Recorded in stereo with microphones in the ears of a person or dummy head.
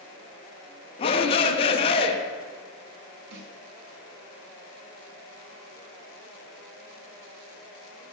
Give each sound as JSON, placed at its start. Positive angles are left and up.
{"t": 1.0, "sound": "a shout", "side_deg": 20, "distance_m": 0.6}
{"t": 3.3, "sound": "a snare drum", "side_deg": -70, "distance_m": 1.2}